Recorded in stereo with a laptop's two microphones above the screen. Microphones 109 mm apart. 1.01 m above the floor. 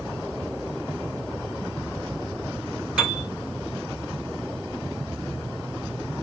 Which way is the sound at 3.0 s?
10° right (ahead or behind).